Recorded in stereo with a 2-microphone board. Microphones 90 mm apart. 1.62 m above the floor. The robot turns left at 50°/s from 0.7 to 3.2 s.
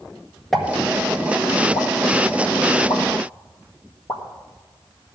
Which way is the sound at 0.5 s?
5° left (ahead or behind).